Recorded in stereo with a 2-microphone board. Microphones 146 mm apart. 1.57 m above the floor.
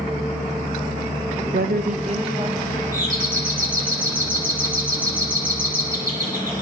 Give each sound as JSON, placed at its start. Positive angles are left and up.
{"t": 1.5, "sound": "a woman speaking", "side_deg": -85, "distance_m": 0.6}
{"t": 2.9, "sound": "a doorbell", "side_deg": -70, "distance_m": 10.0}